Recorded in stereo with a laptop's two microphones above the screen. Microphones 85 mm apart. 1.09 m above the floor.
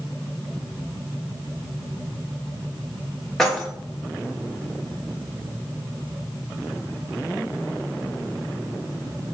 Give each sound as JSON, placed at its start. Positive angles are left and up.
{"t": 3.4, "sound": "keys jangling", "side_deg": 5, "distance_m": 1.0}